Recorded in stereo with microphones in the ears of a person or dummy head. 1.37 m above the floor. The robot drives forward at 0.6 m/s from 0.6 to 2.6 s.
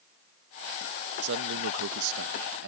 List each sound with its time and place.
1.2 s a man speaking: 70° right (ahead or behind); by 2.7 s 65° right (ahead or behind)